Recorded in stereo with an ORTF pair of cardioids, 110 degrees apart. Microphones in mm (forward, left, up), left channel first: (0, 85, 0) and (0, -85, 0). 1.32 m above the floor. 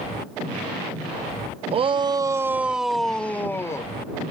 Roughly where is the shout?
Ahead right.